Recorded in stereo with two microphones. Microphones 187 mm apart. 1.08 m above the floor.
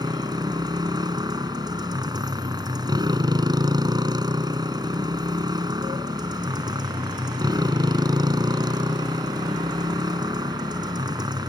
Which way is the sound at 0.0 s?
20° right (ahead or behind).